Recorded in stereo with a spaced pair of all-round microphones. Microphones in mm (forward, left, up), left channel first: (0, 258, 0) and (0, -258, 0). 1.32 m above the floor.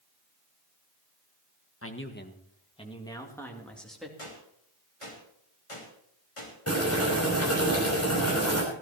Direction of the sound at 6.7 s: 30° left (ahead or behind).